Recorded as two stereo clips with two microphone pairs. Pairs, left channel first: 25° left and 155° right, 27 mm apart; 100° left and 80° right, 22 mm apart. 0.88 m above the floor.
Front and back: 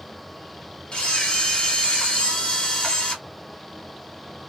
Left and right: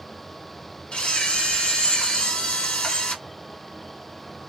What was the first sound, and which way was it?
A camera shutter, 70° left.